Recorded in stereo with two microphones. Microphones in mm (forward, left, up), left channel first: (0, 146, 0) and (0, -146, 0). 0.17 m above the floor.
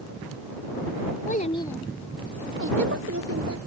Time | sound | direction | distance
1.3 | a child speaking | 30° left (ahead or behind) | ?